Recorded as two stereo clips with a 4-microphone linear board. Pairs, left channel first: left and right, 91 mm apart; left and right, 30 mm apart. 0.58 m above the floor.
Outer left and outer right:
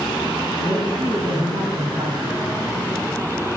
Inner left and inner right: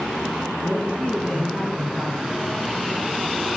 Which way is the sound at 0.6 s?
55° right (ahead or behind).